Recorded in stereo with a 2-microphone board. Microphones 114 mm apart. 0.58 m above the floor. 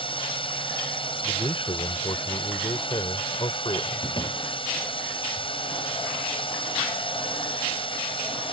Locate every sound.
0.0 s a drone: 45° left (ahead or behind)
1.2 s a man speaking: 50° left (ahead or behind)
4.0 s a door slam: 40° left (ahead or behind)